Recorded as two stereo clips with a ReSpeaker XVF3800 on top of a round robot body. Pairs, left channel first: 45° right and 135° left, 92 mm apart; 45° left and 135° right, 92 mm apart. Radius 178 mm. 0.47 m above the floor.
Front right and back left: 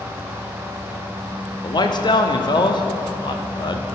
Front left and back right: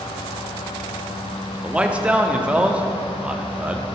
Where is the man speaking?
60° right, 1.2 m.